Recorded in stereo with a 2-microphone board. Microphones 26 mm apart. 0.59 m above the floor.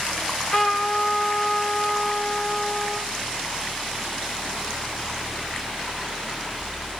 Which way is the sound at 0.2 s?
35° left (ahead or behind).